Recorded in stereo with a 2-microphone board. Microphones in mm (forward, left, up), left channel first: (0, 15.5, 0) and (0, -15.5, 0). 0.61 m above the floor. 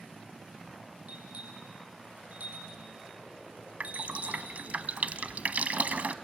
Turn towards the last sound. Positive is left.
turn(degrees=-55)  # may be behind; listen again after turning